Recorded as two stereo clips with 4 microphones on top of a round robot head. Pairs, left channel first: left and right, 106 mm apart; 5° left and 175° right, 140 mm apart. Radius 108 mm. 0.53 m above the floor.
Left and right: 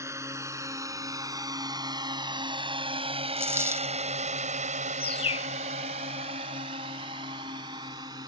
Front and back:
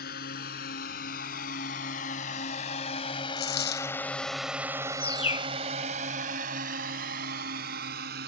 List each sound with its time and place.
0.0 s a drone: 25° right; by 8.3 s 155° right
3.4 s a dropped coin: 20° right
5.0 s a bird: 55° left